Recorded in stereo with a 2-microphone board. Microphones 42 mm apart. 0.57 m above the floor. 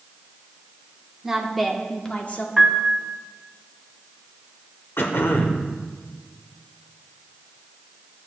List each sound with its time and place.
1.2 s a woman speaking: 10° right (ahead or behind), 1.1 m; by 2.5 s 45° left (ahead or behind), 1.0 m
2.6 s a piano: 5° right (ahead or behind), 0.8 m
5.0 s throat clearing: 65° left (ahead or behind), 0.9 m